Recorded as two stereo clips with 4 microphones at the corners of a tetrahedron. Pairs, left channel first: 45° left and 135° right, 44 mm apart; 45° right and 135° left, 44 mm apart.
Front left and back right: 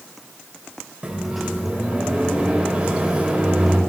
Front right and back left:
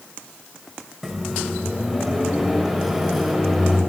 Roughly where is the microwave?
Behind right.